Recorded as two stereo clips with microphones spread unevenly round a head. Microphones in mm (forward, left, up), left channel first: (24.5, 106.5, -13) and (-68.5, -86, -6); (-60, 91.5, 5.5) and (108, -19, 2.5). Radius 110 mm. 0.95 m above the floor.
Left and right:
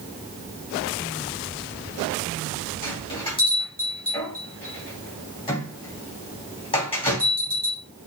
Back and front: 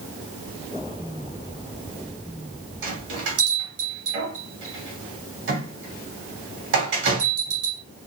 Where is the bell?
5° right, 3 m.